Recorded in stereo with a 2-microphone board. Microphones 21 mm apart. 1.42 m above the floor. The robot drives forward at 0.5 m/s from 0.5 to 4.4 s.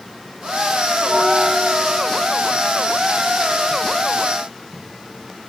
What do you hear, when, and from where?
1.0 s a bell: 25° right (ahead or behind), 1.1 m; by 2.4 s 20° right (ahead or behind), 1.6 m